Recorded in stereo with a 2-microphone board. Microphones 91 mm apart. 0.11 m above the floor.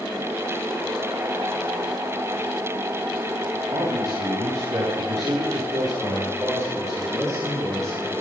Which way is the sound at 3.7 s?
45° right (ahead or behind).